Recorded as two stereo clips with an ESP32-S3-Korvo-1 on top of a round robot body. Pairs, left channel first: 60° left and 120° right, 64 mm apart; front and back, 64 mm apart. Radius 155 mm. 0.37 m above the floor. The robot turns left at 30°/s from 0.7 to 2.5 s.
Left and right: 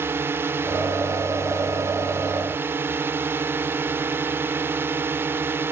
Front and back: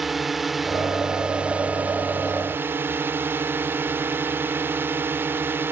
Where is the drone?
95° right; by 5.7 s 150° right.